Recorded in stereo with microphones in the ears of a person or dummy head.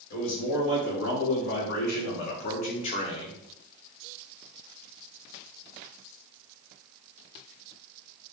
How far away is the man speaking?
About 2.5 m.